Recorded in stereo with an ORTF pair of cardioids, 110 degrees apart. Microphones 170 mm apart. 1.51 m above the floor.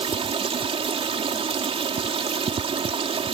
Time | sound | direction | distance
0.0 | running water | 30° right | ?